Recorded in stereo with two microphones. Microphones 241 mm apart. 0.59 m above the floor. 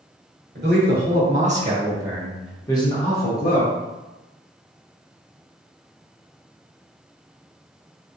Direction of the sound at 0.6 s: 45° right (ahead or behind).